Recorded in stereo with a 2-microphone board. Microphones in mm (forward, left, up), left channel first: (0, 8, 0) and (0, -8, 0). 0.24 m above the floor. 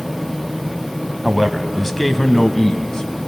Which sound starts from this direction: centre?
A man speaking, at 1.2 s.